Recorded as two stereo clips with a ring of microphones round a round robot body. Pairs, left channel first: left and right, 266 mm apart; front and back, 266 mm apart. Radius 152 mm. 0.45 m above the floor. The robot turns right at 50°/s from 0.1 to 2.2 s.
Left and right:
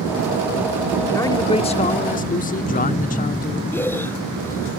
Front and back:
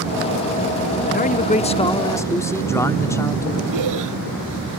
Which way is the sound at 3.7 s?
170° left.